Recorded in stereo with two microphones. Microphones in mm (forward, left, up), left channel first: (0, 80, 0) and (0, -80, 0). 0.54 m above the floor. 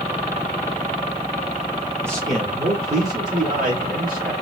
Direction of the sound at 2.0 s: 10° right (ahead or behind).